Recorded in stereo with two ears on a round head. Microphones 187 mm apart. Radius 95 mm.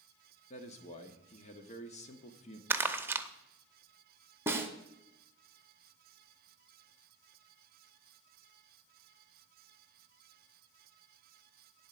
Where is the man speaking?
35° left (ahead or behind), 1.1 m.